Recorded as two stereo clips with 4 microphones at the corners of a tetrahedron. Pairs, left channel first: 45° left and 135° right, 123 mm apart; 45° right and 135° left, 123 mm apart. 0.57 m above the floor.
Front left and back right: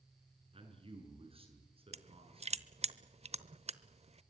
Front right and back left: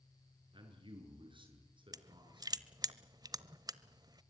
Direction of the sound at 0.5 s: 175° right.